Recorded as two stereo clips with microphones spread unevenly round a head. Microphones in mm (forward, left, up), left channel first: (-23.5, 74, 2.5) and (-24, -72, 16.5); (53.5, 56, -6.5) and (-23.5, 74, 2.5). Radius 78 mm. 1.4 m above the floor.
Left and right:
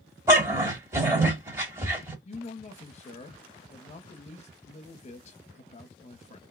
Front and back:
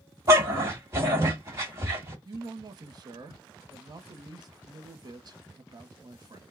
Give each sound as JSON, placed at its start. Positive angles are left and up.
{"t": 0.3, "sound": "a dog barking", "azimuth_deg": -150, "distance_m": 1.6}
{"t": 2.2, "sound": "a man speaking", "azimuth_deg": 135, "distance_m": 0.8}